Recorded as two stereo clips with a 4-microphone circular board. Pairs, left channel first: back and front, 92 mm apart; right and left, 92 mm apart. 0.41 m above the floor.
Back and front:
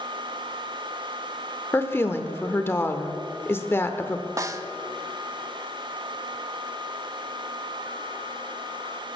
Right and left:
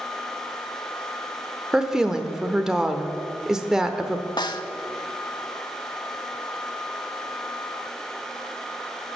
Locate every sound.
1.7 s a woman speaking: 165° left, 0.8 m
4.4 s a snare drum: 55° right, 0.6 m